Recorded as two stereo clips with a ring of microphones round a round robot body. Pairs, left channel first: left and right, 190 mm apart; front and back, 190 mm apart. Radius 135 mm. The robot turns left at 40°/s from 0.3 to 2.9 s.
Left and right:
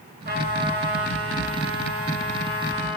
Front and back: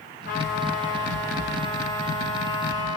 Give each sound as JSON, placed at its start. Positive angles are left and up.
{"t": 0.2, "sound": "a trumpet", "azimuth_deg": -55, "distance_m": 8.5}